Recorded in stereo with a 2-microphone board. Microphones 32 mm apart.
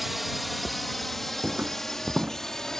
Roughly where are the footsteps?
Right.